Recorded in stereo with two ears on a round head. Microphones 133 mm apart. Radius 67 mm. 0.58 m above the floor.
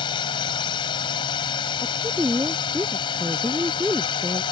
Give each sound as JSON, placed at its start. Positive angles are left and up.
{"t": 0.0, "sound": "a drone", "side_deg": 35}
{"t": 1.8, "sound": "a woman speaking", "side_deg": -10}